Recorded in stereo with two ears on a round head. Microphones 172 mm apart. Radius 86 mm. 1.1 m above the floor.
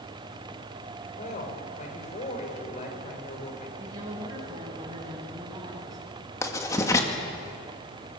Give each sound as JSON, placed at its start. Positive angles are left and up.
{"t": 1.2, "sound": "a woman speaking", "side_deg": 40, "distance_m": 5.5}
{"t": 3.8, "sound": "a woman speaking", "side_deg": -20, "distance_m": 7.5}
{"t": 6.4, "sound": "writing", "side_deg": 15, "distance_m": 2.0}